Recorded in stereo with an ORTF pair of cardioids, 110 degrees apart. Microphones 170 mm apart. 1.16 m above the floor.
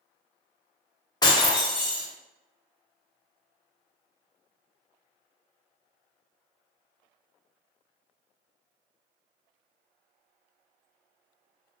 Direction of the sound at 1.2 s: 25° left.